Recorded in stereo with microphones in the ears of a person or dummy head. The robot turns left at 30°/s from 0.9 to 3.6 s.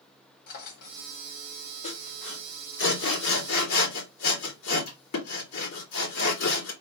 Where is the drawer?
50° left (ahead or behind), 1.0 m; by 1.1 s 45° left (ahead or behind), 1.0 m.